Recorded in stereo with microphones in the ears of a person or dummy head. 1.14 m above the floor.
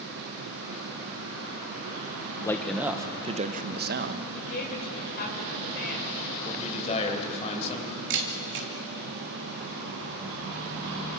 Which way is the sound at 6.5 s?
35° left (ahead or behind).